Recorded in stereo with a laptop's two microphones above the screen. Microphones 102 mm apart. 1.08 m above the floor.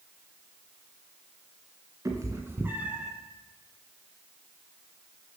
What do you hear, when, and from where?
2.0 s a cat meowing: 30° right (ahead or behind), 1.5 m; by 3.1 s 5° right (ahead or behind), 0.9 m